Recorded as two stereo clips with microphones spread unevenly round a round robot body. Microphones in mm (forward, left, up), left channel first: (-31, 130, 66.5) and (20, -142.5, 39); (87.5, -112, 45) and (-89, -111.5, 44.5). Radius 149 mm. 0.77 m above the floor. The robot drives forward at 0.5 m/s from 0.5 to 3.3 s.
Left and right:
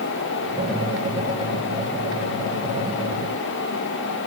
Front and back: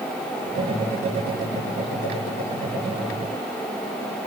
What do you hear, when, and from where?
Only background noise.